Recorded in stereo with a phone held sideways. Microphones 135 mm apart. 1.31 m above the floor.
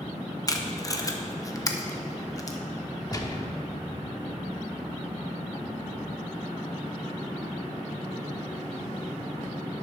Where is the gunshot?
25° left (ahead or behind), 0.9 m.